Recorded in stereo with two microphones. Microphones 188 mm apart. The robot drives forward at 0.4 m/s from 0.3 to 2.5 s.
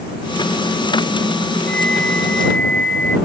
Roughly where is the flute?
Left.